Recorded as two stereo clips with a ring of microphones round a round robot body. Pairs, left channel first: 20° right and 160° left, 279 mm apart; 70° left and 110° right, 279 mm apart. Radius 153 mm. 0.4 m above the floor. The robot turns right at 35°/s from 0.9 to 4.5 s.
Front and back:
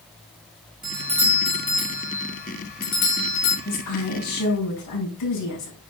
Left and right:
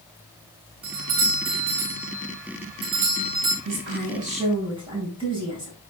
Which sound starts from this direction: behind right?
A doorbell, at 0.8 s.